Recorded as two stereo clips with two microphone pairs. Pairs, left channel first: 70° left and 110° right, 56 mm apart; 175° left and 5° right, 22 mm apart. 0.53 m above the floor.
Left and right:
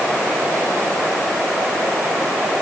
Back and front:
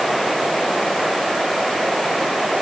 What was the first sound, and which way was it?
Only background noise.